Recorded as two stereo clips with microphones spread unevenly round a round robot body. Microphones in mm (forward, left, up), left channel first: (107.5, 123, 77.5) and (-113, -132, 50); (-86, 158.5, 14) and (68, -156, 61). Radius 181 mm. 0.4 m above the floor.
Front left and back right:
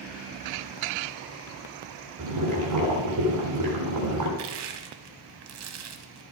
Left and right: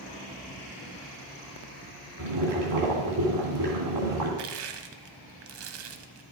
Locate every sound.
2.2 s boiling: 95° right, 3.5 m
4.4 s crushing: 85° right, 0.9 m